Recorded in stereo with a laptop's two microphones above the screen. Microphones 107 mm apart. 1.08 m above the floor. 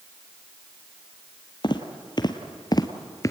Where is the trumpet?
No trumpet in this recording.